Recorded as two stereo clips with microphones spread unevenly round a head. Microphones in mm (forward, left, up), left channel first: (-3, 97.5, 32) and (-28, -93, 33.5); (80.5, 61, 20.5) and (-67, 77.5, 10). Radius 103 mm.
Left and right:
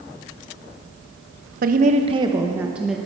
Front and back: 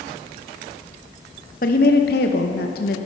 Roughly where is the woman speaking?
Ahead right.